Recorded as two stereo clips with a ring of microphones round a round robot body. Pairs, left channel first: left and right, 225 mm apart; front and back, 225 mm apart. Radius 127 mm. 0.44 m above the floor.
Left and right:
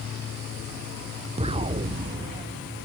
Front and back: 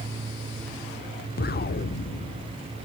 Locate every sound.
1.4 s an explosion: 30° right, 0.6 m